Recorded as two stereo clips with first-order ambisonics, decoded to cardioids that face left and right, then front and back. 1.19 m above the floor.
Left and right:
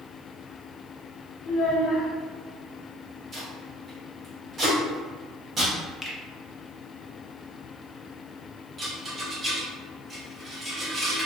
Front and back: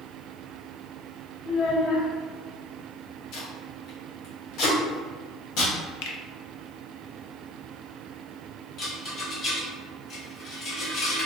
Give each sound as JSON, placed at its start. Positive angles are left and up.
{"t": 1.4, "sound": "a child speaking", "azimuth_deg": 45, "distance_m": 0.8}
{"t": 3.3, "sound": "tape being pulled", "azimuth_deg": -25, "distance_m": 1.1}
{"t": 6.0, "sound": "a finger snap", "azimuth_deg": 10, "distance_m": 0.5}
{"t": 8.8, "sound": "a rattle", "azimuth_deg": -30, "distance_m": 0.8}